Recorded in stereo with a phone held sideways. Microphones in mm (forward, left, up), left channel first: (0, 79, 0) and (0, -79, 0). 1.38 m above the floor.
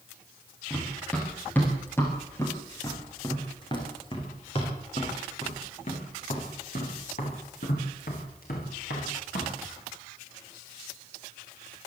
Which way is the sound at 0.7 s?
5° left (ahead or behind).